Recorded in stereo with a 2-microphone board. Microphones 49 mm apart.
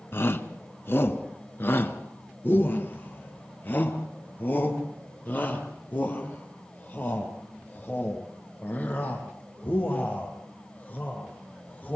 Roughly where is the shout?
Left.